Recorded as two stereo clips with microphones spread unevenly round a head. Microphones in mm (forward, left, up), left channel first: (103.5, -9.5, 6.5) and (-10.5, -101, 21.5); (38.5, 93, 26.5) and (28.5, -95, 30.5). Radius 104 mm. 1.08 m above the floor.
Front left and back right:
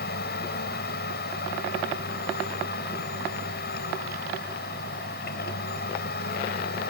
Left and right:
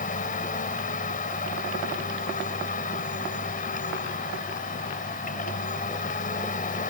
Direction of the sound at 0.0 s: 40° left.